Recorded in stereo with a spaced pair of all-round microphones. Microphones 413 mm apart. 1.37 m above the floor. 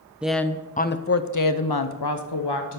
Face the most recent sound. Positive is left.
turn(degrees=70)  # may be behind; listen again after turning